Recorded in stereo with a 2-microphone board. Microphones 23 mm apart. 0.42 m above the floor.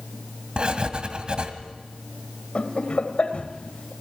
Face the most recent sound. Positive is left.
turn(degrees=55)  # may be behind; listen again after turning